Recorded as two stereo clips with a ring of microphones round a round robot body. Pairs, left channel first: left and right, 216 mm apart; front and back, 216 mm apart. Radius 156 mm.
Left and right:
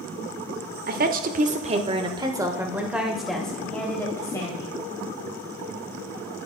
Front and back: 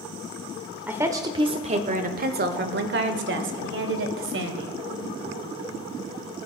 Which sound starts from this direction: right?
A woman speaking, at 0.9 s.